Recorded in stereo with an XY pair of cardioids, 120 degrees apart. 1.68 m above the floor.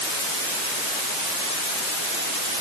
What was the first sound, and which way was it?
Only background noise.